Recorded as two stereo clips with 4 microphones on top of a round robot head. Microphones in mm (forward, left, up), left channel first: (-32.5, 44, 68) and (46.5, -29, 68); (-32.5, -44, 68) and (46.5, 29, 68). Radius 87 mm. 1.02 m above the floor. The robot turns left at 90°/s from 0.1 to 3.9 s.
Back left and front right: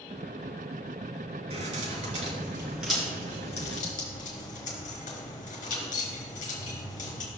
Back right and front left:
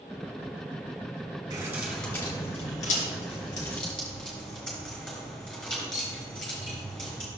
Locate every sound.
1.5 s keys jangling: 10° right, 3.5 m; by 7.3 s 135° left, 3.5 m